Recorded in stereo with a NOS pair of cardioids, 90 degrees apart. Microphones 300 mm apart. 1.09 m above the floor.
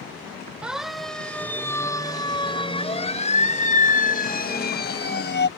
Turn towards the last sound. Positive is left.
turn(degrees=40)